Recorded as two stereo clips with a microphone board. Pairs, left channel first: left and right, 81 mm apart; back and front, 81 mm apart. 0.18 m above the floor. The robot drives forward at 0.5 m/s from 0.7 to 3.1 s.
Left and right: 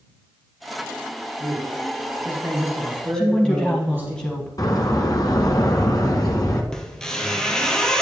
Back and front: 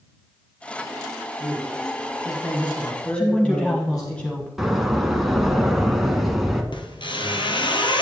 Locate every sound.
1.4 s a man speaking: 130° right, 1.8 m; by 4.1 s 150° right, 2.5 m
3.1 s a woman speaking: 140° left, 1.3 m
4.6 s a door slam: 85° left, 1.2 m
6.7 s a squeak: 170° left, 1.0 m